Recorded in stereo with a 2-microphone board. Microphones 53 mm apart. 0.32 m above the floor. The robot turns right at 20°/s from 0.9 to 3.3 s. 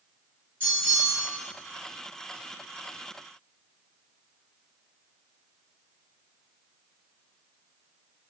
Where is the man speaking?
I don't hear a man speaking.